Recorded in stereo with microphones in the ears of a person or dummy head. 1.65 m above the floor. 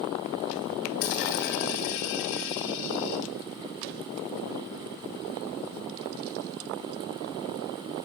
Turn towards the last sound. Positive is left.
turn(degrees=45)  # may be behind; listen again after turning